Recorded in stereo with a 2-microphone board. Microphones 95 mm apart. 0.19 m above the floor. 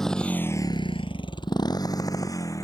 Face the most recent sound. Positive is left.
turn(degrees=35)  # may be behind; listen again after turning